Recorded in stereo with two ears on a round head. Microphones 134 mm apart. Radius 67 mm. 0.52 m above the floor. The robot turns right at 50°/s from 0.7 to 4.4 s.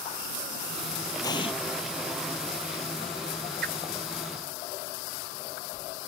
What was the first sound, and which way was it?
An explosion, 25° left (ahead or behind).